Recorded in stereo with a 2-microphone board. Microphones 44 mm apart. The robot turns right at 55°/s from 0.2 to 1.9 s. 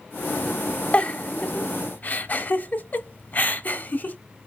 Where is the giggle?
30° left (ahead or behind), 0.8 m; by 4.2 s 45° left (ahead or behind), 0.8 m.